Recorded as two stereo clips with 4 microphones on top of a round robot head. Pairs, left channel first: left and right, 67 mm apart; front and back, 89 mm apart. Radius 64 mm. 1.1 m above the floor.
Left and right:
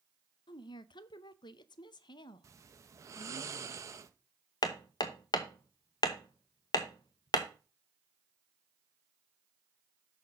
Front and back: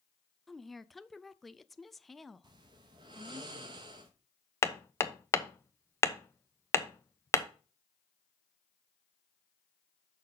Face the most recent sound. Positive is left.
turn(degrees=60)